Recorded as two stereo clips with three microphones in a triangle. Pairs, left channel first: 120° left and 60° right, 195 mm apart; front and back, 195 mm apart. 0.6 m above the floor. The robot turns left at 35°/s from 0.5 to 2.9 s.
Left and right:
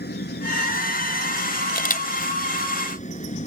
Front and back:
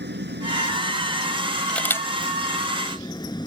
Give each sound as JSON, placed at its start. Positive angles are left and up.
{"t": 0.0, "sound": "an engine running", "azimuth_deg": 150}
{"t": 1.7, "sound": "a camera shutter", "azimuth_deg": 85}